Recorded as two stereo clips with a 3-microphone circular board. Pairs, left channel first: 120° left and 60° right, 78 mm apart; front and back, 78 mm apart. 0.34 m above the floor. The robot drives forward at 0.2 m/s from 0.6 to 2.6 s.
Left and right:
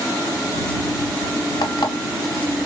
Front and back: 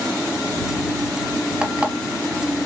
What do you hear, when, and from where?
1.6 s an alarm clock: 100° left, 0.9 m; by 1.9 s 105° left, 0.9 m